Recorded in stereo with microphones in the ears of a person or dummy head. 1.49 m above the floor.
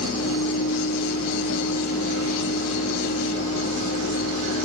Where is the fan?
70° left (ahead or behind), 1.2 m.